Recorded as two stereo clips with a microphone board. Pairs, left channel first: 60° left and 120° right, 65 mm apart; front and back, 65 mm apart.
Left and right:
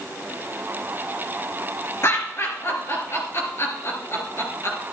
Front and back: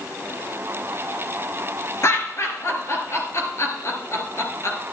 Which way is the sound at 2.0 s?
25° left.